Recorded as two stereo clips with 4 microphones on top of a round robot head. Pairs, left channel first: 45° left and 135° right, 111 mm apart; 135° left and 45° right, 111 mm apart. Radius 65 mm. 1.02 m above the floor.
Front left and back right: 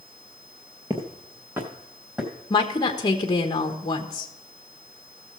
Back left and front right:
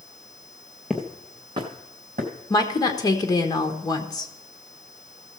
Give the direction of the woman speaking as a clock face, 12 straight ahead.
9 o'clock.